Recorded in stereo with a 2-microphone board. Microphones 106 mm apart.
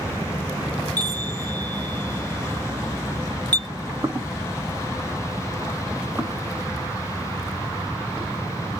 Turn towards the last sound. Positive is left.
turn(degrees=0)  # may be behind; listen again after turning